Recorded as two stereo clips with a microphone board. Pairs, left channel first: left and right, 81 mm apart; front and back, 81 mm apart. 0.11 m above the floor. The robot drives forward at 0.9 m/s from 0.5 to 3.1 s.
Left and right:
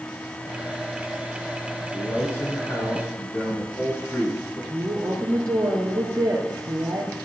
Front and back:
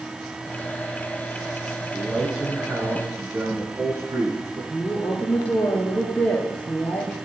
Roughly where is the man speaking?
Left.